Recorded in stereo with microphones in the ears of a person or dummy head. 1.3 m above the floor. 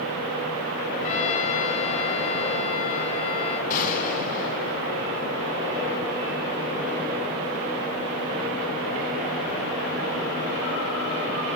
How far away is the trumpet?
About 3.5 m.